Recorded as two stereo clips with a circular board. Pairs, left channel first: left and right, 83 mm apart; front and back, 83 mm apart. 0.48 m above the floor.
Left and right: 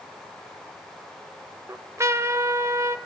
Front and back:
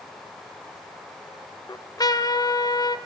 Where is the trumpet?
35° right, 0.9 m.